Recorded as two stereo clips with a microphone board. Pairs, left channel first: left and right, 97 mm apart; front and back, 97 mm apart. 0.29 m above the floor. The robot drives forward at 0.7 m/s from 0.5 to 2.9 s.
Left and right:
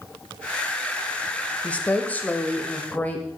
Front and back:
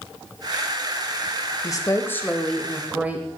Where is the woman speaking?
20° left, 1.1 m; by 3.3 s 130° left, 0.9 m.